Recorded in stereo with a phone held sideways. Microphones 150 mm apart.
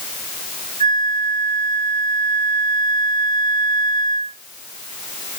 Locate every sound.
0.8 s a flute: 60° right (ahead or behind), 3 m